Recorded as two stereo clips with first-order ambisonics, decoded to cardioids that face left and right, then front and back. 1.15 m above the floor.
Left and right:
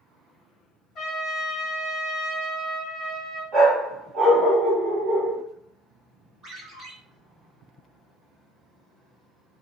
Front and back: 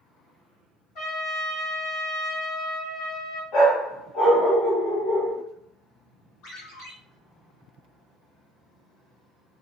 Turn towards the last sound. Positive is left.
turn(degrees=-20)